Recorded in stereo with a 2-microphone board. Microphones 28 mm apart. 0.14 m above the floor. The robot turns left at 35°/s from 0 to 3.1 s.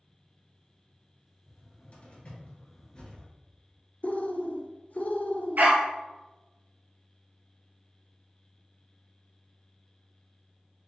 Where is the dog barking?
65° right (ahead or behind), 1.3 m.